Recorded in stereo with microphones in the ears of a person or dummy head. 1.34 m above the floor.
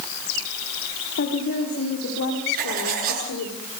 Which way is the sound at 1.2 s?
60° left (ahead or behind).